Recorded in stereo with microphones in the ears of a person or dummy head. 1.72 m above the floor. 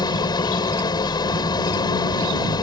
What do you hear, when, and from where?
0.0 s an engine running: 20° left (ahead or behind)